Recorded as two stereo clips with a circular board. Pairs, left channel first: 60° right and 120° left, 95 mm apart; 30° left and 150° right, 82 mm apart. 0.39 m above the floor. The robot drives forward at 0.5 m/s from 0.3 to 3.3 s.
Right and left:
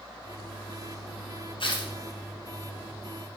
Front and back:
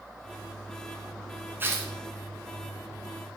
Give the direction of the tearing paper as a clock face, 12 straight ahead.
3 o'clock.